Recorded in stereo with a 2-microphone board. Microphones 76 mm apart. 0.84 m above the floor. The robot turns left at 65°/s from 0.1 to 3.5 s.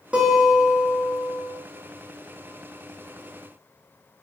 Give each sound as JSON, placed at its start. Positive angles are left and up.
{"t": 0.1, "sound": "a guitar", "azimuth_deg": -165, "distance_m": 0.9}